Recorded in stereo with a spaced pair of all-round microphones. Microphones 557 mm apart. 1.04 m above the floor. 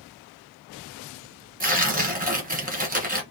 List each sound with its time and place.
1.6 s tearing paper: 15° right (ahead or behind), 0.9 m